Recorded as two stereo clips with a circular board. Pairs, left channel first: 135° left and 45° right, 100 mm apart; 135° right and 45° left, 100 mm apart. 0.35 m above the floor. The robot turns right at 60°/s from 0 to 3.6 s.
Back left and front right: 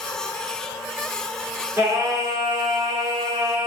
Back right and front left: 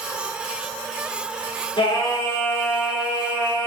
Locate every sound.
1.8 s singing: 110° right, 3.5 m; by 3.7 s straight ahead, 3.5 m